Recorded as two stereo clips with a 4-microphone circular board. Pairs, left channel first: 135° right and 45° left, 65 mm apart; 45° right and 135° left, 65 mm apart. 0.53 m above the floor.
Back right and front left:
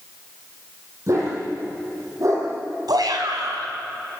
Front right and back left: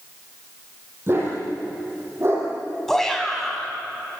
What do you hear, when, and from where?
1.1 s a dog barking: 85° left, 9 m
2.9 s a shout: 40° left, 5 m